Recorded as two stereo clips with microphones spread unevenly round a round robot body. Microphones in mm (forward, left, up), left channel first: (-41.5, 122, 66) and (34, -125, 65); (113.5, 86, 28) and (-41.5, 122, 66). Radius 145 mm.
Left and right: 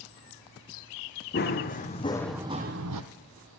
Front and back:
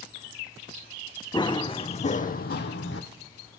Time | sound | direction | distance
1.3 | running footsteps | 55° left | 1.8 m